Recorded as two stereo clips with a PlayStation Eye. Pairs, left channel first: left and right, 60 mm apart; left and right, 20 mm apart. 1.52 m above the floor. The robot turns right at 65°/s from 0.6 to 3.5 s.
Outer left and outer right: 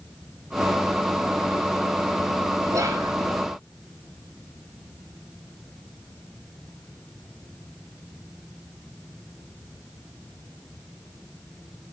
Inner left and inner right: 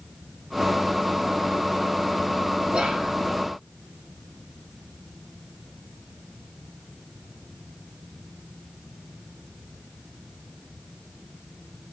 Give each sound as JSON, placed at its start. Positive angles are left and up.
{"t": 2.7, "sound": "whispering", "side_deg": -70, "distance_m": 1.1}